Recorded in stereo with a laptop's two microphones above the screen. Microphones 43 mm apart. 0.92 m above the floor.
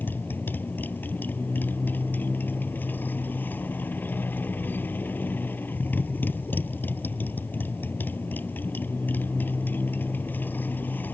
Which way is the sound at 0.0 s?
50° left (ahead or behind).